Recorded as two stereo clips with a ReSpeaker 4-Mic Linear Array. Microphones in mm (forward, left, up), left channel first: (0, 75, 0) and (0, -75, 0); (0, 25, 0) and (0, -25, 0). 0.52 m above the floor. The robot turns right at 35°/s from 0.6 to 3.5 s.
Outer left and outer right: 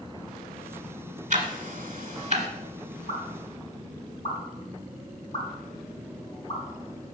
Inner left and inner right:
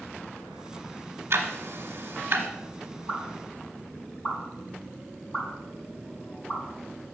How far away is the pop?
About 4.5 m.